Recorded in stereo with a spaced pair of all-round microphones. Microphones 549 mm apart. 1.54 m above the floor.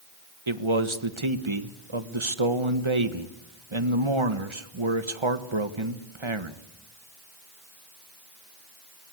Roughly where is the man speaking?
Right.